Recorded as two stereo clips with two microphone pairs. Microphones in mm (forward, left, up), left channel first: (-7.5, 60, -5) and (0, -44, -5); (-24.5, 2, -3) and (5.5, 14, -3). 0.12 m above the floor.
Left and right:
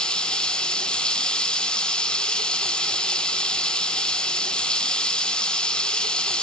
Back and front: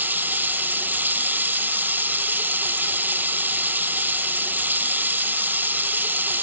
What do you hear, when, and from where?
0.0 s running water: 15° left, 0.8 m